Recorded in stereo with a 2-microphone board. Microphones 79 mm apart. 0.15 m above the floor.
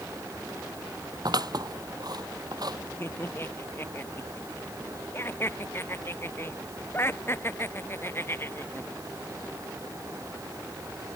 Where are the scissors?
55° right (ahead or behind).